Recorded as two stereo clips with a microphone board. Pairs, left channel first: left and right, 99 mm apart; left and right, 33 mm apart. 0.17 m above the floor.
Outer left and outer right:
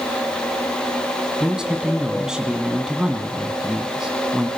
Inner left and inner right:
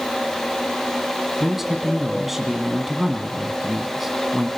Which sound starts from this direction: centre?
A man speaking, at 1.4 s.